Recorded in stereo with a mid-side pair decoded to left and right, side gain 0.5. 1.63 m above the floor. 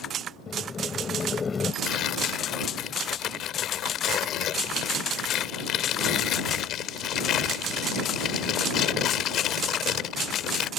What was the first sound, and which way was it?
Boiling, 30° left.